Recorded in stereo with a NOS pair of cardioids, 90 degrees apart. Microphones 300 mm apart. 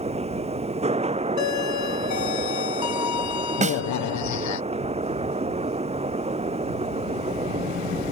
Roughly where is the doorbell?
Ahead left.